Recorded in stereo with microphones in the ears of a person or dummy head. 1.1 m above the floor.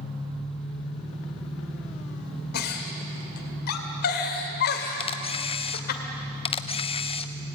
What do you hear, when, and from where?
0.0 s an engine running: 5° left (ahead or behind), 7.5 m
2.5 s a giggle: 55° left (ahead or behind), 2 m
5.0 s a camera shutter: 30° left (ahead or behind), 0.7 m